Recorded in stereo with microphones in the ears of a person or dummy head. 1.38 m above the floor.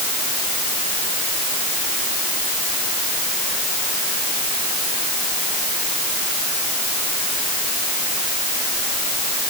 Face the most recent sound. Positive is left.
No sound to turn to.